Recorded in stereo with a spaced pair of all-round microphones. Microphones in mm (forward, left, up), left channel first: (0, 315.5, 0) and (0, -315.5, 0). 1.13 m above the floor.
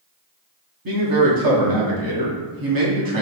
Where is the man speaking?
35° right (ahead or behind), 0.8 m.